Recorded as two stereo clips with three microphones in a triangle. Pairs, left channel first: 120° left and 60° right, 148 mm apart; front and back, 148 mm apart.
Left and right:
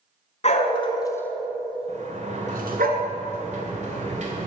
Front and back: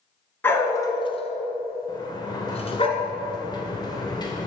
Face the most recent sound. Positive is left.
turn(degrees=-55)